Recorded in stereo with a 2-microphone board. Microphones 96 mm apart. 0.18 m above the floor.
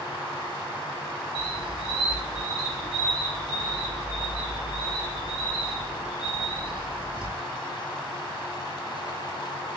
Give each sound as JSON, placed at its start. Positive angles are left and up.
{"t": 1.4, "sound": "a squeak", "side_deg": -70, "distance_m": 0.7}